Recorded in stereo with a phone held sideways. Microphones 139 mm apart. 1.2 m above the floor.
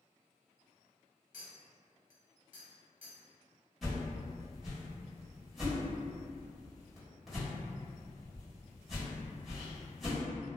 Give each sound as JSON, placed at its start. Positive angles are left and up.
{"t": 1.3, "sound": "a clink", "side_deg": 65, "distance_m": 0.9}
{"t": 3.8, "sound": "a whoosh", "side_deg": 0, "distance_m": 1.2}